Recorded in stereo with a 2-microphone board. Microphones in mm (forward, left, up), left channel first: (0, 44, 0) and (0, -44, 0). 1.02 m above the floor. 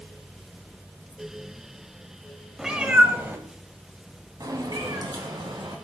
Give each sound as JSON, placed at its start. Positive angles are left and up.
{"t": 2.6, "sound": "a cat meowing", "side_deg": -5, "distance_m": 1.0}